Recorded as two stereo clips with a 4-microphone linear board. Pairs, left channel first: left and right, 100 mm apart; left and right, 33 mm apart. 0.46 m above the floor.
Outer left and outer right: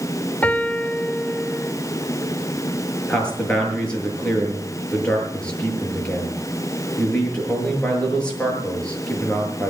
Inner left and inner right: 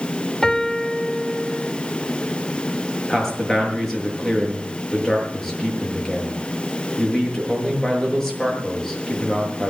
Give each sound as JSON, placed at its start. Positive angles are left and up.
{"t": 0.4, "sound": "a piano", "side_deg": 15, "distance_m": 1.1}
{"t": 3.1, "sound": "a man speaking", "side_deg": 10, "distance_m": 7.5}